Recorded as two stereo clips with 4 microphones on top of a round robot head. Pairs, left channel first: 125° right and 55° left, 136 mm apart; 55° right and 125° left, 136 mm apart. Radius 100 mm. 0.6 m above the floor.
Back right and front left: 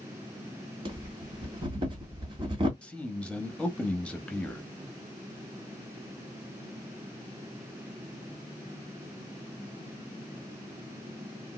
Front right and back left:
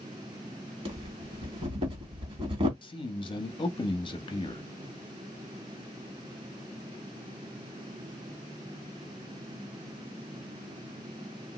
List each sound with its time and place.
0.8 s breathing: 95° left, 1.9 m
2.8 s a man speaking: 50° right, 0.8 m